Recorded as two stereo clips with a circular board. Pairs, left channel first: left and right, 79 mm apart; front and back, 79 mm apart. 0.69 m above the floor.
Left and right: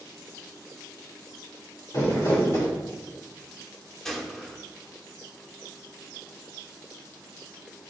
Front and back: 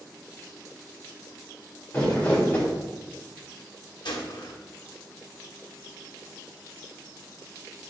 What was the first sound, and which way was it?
Crumpling, 65° left.